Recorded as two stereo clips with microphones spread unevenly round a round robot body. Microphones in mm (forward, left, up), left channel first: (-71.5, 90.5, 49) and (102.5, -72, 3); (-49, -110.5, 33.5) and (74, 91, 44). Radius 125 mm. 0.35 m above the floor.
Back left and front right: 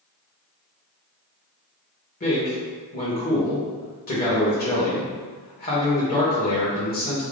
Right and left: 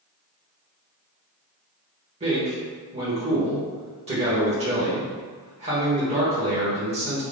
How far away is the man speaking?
About 1.3 m.